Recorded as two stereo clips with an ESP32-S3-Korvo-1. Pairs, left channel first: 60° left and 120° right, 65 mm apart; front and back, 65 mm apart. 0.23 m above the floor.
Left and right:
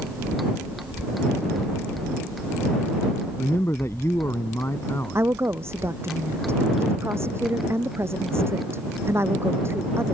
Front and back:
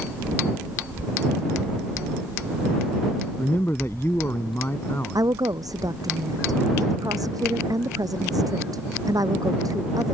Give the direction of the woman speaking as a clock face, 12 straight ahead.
6 o'clock.